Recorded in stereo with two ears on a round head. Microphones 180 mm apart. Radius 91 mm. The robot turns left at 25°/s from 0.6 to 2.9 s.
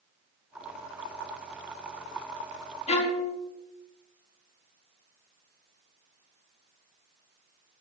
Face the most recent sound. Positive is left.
turn(degrees=30)  # may be behind; listen again after turning